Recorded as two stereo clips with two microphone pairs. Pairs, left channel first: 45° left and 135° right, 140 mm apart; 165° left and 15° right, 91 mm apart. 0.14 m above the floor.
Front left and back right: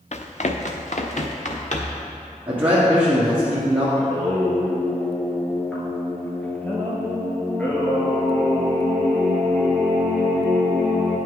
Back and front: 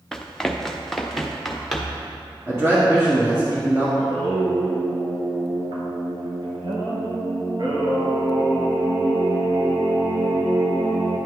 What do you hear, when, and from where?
0.1 s running footsteps: 80° left, 0.8 m; by 2.0 s 75° left, 1.8 m
2.5 s a man speaking: 55° right, 1.6 m
4.0 s singing: 30° right, 1.2 m